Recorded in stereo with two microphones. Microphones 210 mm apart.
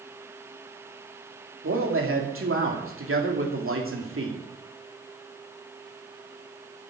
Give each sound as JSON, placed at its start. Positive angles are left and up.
{"t": 1.6, "sound": "a man speaking", "side_deg": -75, "distance_m": 3.0}